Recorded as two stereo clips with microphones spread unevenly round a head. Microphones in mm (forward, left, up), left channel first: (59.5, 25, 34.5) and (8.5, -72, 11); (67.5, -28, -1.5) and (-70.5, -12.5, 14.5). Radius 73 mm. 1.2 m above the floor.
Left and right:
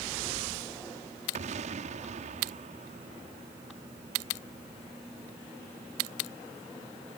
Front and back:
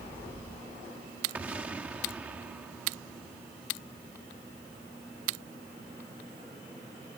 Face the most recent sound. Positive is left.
turn(degrees=-105)